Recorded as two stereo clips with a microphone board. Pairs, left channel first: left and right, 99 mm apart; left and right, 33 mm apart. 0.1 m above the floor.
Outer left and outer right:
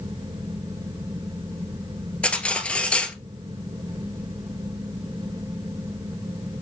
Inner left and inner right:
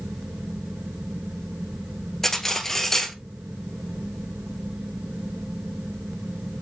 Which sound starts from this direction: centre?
Cutlery clinking, at 2.2 s.